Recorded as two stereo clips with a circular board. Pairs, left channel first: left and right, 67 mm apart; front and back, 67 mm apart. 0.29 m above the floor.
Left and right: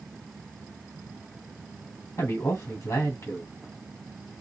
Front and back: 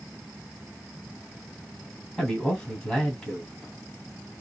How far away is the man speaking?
About 1.6 m.